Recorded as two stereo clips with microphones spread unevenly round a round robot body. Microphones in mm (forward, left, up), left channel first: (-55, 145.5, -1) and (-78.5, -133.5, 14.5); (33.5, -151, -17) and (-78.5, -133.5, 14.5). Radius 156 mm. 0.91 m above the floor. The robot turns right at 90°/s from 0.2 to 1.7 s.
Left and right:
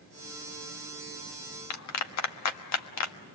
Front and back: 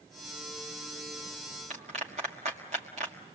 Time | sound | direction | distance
1.7 | a clap | 105° left | 1.3 m